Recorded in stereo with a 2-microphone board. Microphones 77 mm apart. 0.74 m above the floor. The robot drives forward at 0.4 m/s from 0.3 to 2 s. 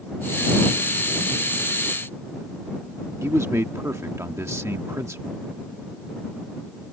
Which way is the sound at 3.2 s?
40° right (ahead or behind).